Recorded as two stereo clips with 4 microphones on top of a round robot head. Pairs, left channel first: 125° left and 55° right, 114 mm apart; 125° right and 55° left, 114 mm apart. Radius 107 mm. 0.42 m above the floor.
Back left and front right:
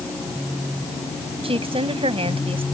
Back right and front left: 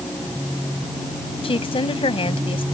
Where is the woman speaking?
90° right.